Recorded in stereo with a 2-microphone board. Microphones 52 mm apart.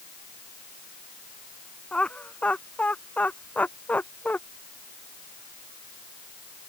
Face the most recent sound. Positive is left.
turn(degrees=30)  # may be behind; listen again after turning